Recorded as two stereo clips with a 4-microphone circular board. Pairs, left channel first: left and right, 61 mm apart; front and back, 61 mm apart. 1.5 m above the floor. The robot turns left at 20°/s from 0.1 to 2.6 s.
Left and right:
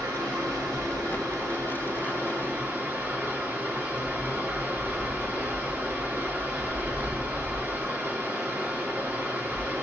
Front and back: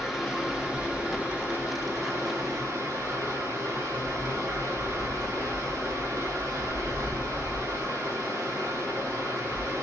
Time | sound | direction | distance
0.0 | running water | 90° right | 1.5 m